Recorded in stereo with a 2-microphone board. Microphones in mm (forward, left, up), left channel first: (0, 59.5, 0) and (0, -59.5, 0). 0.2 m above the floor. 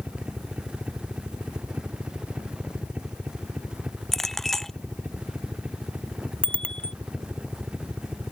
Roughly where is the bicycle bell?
Centre.